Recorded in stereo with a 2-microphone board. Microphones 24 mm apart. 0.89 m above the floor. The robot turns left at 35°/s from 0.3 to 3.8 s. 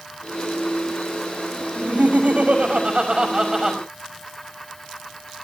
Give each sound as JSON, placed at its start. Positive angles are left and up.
{"t": 1.8, "sound": "laughter", "azimuth_deg": -95, "distance_m": 5.5}